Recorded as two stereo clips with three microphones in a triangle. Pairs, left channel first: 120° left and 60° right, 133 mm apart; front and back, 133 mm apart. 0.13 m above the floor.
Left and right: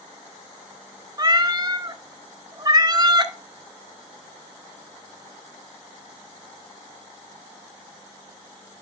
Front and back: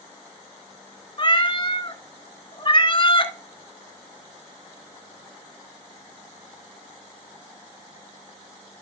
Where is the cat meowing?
20° right, 0.6 m.